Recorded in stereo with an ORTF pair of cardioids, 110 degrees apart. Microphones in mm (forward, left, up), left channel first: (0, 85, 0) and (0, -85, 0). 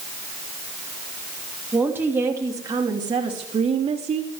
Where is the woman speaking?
10° right, 2.5 m; by 4.3 s 40° right, 3 m.